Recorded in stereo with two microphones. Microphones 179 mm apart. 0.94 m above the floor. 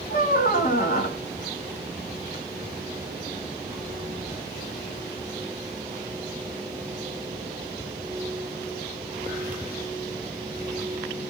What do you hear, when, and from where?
0.1 s a squeak: 50° left (ahead or behind), 0.7 m